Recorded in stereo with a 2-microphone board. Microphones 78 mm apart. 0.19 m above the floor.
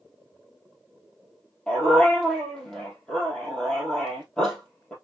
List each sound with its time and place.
1.7 s a dog barking: 10° left (ahead or behind), 2 m